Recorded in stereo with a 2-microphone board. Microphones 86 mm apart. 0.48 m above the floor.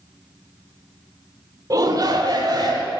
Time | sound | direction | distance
1.7 | a shout | 45° right (ahead or behind) | 1.0 m